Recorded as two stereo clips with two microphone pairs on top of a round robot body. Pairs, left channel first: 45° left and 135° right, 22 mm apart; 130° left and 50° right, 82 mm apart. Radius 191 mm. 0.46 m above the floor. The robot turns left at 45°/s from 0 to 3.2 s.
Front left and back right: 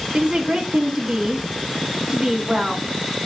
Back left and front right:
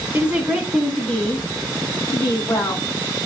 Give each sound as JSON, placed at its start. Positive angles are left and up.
{"t": 0.1, "sound": "a woman speaking", "azimuth_deg": -115, "distance_m": 2.0}